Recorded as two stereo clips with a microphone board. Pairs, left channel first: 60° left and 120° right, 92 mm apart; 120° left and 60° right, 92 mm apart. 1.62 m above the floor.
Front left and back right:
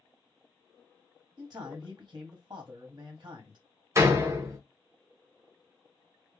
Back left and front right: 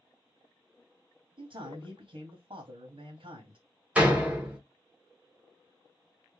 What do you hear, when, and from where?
1.4 s a man speaking: 70° right, 0.8 m
4.0 s a door slam: 125° right, 0.7 m